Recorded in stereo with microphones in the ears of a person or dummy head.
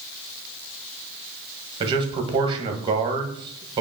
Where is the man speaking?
30° right (ahead or behind), 1.4 m.